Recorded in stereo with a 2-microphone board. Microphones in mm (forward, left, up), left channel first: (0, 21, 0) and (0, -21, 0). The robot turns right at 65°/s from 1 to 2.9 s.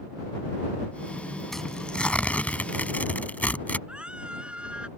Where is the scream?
25° right (ahead or behind).